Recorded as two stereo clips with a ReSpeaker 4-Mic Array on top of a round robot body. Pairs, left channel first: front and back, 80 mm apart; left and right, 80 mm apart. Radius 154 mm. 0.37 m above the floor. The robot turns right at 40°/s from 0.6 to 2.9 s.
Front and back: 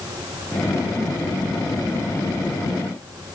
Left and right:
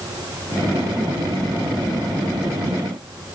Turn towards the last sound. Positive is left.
No sound to turn to.